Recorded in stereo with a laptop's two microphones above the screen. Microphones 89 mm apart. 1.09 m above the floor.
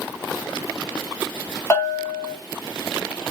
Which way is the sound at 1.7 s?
25° left (ahead or behind).